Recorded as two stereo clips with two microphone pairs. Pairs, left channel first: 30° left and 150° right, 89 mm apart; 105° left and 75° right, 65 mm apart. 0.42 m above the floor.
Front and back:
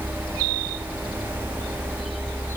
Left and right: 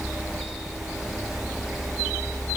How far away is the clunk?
I don't hear a clunk.